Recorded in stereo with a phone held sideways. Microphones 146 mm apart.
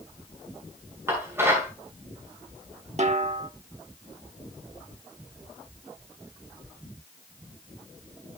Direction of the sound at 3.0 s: 50° right (ahead or behind).